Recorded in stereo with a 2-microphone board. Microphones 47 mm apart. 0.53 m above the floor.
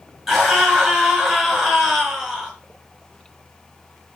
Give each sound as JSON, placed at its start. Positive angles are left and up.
{"t": 0.3, "sound": "a scream", "side_deg": -10, "distance_m": 6.5}